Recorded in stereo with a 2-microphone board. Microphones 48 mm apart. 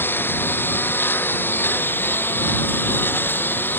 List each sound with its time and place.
0.0 s a lawn mower: 45° left (ahead or behind)